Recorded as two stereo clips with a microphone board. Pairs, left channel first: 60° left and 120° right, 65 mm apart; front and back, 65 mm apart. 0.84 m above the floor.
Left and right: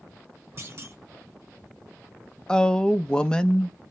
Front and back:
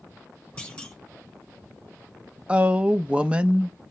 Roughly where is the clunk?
Right.